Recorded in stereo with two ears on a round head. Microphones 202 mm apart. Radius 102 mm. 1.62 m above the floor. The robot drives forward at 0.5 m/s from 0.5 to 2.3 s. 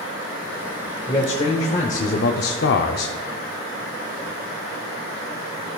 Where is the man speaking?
20° left (ahead or behind), 1.0 m; by 3.1 s 50° left (ahead or behind), 0.5 m.